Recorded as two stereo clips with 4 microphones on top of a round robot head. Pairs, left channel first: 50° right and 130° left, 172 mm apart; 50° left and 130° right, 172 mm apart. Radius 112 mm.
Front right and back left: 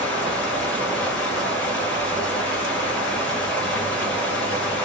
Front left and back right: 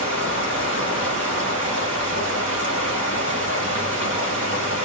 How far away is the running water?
About 2.5 m.